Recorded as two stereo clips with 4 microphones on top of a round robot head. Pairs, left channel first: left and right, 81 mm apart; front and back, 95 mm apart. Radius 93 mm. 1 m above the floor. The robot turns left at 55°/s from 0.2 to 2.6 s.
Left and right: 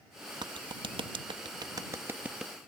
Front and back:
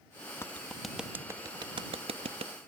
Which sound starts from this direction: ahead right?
A clap, at 0.4 s.